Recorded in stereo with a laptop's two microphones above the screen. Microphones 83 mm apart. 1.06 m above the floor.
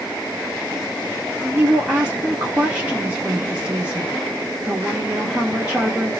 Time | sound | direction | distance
1.4 | a woman speaking | 15° right (ahead or behind) | 0.6 m